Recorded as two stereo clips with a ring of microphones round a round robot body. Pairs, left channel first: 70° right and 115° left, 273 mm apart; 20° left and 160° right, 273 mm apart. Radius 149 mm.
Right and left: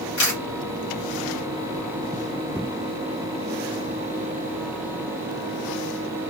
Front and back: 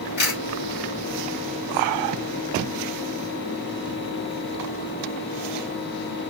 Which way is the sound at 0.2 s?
30° right.